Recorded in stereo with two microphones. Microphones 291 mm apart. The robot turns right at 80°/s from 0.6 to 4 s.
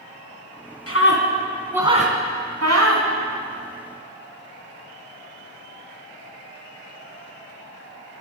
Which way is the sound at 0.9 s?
55° left (ahead or behind).